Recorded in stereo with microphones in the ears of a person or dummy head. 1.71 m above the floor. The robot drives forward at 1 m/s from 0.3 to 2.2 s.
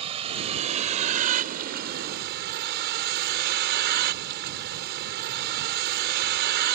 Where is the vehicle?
30° right (ahead or behind); by 6.8 s 55° right (ahead or behind).